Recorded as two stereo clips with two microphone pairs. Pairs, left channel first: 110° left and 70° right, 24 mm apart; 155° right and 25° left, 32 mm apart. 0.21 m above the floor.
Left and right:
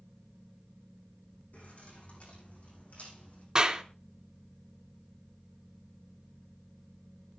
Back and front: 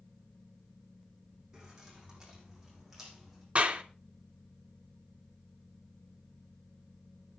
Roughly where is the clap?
Ahead.